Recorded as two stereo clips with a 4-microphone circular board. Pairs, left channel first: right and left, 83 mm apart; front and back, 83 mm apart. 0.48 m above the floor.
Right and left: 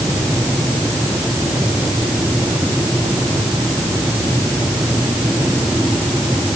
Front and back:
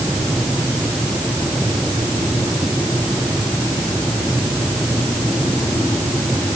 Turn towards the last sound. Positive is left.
No sound to turn to.